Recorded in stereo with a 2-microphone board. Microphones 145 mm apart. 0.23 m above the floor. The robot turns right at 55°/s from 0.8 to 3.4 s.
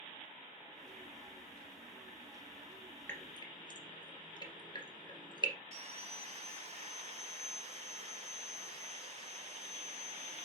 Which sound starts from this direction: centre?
Dripping, at 3.1 s.